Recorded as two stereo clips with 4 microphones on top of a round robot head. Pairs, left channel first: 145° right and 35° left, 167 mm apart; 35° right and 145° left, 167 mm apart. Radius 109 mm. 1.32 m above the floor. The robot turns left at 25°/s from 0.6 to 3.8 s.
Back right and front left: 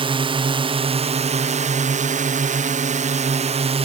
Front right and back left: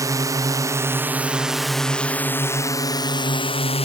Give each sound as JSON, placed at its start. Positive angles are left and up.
{"t": 0.0, "sound": "a drone", "azimuth_deg": 80}